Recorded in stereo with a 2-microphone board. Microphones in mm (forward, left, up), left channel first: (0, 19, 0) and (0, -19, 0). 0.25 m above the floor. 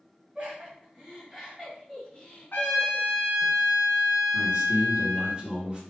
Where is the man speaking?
25° right (ahead or behind), 1.9 m.